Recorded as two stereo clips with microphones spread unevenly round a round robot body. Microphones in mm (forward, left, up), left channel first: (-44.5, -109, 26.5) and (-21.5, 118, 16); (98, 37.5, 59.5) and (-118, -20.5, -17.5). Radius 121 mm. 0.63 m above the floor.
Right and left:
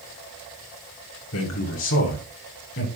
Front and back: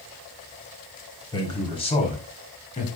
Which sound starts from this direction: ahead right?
A man speaking, at 1.3 s.